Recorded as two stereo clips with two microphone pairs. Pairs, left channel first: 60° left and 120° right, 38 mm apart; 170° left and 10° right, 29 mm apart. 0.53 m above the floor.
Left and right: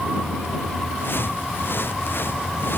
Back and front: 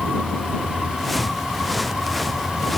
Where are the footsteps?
80° left; by 2.8 s 85° left.